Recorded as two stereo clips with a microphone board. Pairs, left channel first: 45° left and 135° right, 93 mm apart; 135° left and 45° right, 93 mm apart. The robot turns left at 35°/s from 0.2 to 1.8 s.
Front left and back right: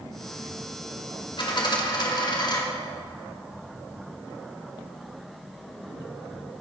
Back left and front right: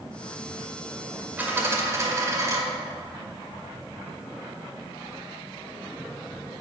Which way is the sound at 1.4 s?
25° left.